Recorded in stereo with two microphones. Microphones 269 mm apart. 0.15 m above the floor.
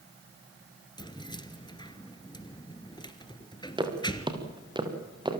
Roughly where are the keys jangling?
Centre.